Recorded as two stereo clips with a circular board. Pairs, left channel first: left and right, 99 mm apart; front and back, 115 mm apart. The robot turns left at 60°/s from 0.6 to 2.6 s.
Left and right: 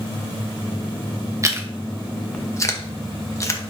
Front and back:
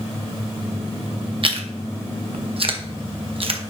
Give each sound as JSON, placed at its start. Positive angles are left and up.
{"t": 1.4, "sound": "chewing", "azimuth_deg": -145, "distance_m": 0.9}